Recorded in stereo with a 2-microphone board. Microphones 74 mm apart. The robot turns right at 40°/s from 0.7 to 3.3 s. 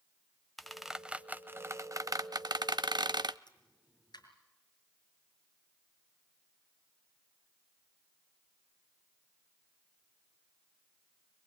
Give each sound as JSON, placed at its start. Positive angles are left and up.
{"t": 0.6, "sound": "a squeak", "side_deg": 0, "distance_m": 0.6}
{"t": 3.5, "sound": "a pop", "side_deg": 75, "distance_m": 5.5}